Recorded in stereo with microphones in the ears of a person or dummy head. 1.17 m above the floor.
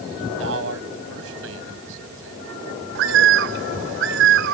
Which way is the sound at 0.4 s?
75° right (ahead or behind).